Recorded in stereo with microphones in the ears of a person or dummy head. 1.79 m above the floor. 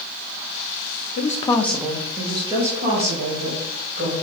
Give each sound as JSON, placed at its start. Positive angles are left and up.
{"t": 1.2, "sound": "a woman speaking", "side_deg": 55, "distance_m": 0.7}